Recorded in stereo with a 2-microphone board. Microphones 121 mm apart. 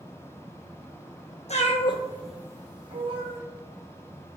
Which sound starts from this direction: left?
A cat meowing, at 1.5 s.